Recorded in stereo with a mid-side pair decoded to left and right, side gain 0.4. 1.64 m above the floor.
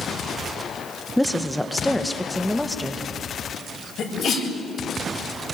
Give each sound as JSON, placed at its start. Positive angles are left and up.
{"t": 1.2, "sound": "a woman speaking", "azimuth_deg": 0, "distance_m": 1.4}
{"t": 4.0, "sound": "a sneeze", "azimuth_deg": 65, "distance_m": 8.0}